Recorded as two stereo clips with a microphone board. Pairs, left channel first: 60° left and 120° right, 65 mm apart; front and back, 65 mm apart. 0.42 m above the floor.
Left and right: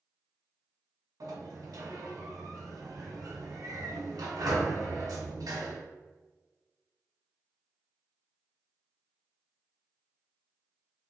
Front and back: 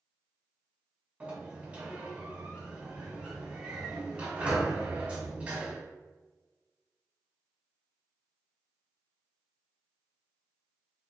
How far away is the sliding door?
About 1.2 m.